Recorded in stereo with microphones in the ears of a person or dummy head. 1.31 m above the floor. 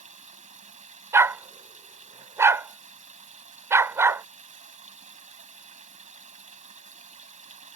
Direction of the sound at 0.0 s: 35° right (ahead or behind).